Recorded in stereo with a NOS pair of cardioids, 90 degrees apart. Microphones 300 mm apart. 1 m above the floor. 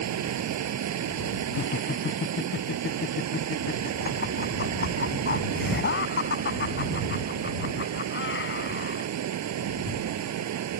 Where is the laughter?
40° left.